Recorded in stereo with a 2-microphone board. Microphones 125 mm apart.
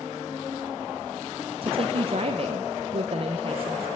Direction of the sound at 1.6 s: 45° right (ahead or behind).